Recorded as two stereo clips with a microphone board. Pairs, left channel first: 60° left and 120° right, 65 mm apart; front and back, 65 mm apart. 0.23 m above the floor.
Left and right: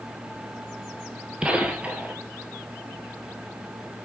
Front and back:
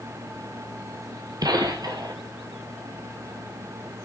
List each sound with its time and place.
1.4 s a gunshot: 165° left, 1.2 m